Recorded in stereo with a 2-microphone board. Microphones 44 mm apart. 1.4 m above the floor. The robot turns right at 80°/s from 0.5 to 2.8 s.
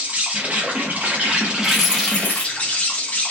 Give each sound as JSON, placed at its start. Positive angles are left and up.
{"t": 0.0, "sound": "an insect", "azimuth_deg": -120, "distance_m": 0.7}
{"t": 1.6, "sound": "keys jangling", "azimuth_deg": -5, "distance_m": 1.0}